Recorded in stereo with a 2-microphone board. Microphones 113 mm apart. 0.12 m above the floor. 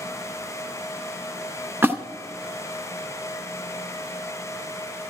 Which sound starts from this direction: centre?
A splash, at 1.8 s.